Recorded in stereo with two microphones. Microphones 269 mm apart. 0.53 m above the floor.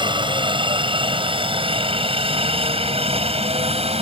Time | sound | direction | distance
0.0 | a helicopter | 15° right (ahead or behind) | ?